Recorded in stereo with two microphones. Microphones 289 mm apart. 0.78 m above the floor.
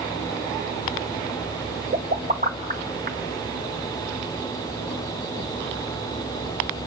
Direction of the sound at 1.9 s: 30° right (ahead or behind).